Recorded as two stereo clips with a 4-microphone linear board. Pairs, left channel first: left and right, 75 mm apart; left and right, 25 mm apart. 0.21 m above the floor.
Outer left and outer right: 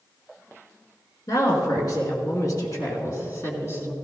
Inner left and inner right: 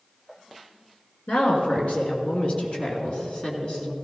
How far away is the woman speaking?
About 3 m.